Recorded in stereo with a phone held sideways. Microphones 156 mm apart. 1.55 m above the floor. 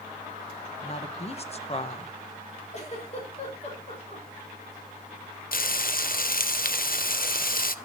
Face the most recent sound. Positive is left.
turn(degrees=65)  # may be behind; listen again after turning